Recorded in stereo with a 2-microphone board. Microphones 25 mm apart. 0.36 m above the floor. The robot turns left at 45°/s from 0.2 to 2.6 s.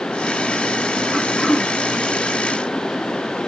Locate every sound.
1.1 s throat clearing: 20° right (ahead or behind), 1.1 m; by 1.7 s 5° left (ahead or behind), 1.1 m